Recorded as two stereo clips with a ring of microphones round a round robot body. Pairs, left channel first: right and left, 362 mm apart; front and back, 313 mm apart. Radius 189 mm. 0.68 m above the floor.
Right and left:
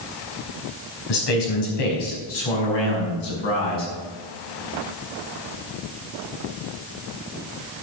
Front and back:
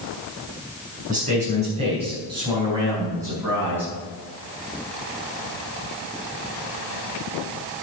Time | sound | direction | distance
1.1 | a man speaking | 110° right | 4.5 m